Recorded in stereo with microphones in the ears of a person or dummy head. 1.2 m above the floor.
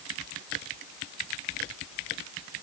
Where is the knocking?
I don't hear knocking.